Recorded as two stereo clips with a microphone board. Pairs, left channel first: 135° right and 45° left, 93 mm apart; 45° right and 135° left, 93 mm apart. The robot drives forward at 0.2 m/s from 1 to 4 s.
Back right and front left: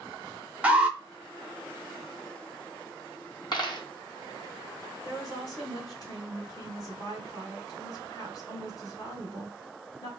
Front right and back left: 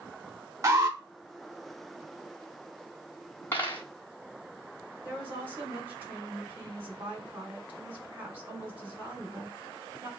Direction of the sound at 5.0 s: 165° right.